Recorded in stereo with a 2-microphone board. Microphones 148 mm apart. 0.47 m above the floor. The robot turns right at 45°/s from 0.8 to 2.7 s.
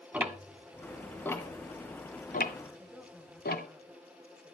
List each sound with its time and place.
0.1 s ticking: 10° right (ahead or behind), 1.3 m; by 3.7 s 75° left (ahead or behind), 1.3 m
2.8 s a woman speaking: 5° right (ahead or behind), 2 m